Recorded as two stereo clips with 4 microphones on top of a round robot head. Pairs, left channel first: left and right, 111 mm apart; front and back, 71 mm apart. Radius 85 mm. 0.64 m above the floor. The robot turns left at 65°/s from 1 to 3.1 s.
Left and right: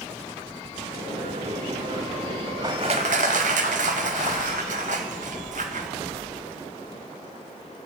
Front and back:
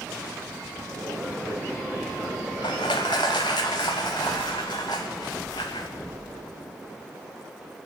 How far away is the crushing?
About 0.6 m.